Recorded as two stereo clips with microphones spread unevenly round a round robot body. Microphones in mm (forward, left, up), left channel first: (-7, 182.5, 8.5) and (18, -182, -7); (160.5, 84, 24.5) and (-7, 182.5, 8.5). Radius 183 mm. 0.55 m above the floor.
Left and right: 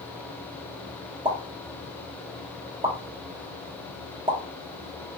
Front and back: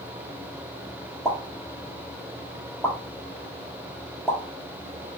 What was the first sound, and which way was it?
A pop, 130° right.